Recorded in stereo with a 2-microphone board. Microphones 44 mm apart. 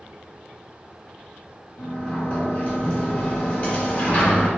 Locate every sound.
1.8 s a sliding door: 35° left (ahead or behind), 1.5 m